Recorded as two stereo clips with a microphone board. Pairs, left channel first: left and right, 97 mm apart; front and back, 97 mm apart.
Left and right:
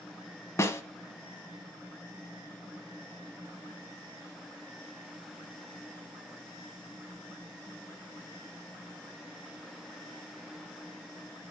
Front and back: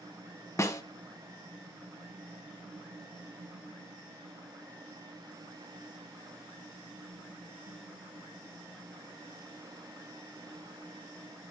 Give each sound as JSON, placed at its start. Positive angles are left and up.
{"t": 0.6, "sound": "a snare drum", "azimuth_deg": 45, "distance_m": 1.2}